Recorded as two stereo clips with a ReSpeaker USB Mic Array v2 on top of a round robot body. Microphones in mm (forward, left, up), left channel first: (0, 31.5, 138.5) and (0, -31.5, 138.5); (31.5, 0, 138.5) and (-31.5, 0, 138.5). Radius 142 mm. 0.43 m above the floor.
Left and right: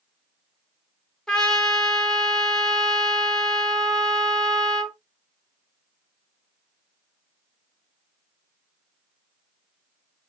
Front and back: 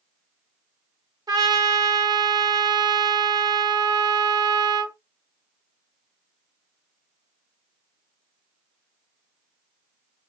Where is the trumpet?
170° left, 0.8 m.